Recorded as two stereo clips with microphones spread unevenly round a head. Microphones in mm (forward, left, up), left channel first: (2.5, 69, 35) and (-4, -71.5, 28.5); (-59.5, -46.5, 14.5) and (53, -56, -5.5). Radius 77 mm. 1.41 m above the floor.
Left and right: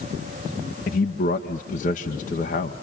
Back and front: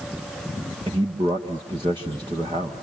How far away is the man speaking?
About 1.8 m.